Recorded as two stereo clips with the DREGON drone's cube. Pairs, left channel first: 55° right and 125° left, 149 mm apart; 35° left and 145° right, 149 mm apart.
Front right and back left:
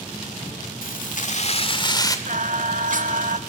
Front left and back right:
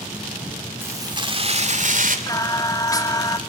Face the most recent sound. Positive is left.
turn(degrees=100)